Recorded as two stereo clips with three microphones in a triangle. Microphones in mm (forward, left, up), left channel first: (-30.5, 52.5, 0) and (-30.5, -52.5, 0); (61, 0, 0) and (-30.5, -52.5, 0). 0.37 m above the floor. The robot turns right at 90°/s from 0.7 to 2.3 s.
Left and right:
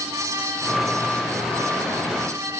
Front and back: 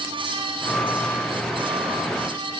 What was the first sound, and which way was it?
Only background noise.